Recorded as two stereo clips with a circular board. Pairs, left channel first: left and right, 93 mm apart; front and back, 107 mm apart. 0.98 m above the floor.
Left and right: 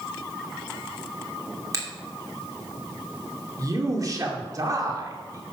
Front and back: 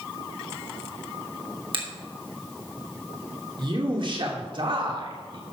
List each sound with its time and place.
1.7 s a finger snap: 140° right, 2.5 m
3.6 s a man speaking: 140° right, 2.5 m